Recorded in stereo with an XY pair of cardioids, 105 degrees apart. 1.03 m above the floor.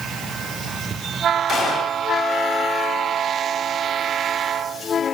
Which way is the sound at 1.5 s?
60° left.